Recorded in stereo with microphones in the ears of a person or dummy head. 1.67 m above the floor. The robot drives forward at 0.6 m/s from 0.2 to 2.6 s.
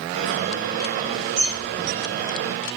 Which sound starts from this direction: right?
A bird, at 1.4 s.